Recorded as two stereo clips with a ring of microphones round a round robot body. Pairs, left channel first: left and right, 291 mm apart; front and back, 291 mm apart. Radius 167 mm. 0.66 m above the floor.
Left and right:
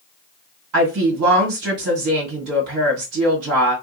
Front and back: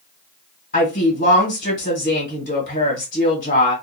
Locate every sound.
0.7 s a woman speaking: 60° right, 1.8 m